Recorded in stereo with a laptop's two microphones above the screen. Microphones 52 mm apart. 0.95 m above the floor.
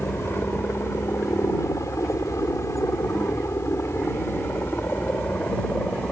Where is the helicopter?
50° left (ahead or behind); by 6.1 s 30° left (ahead or behind).